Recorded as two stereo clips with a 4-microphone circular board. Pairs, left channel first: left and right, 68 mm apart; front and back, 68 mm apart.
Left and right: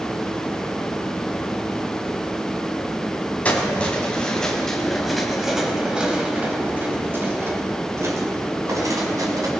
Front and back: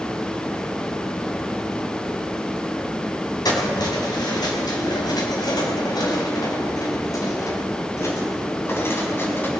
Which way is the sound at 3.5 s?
20° left.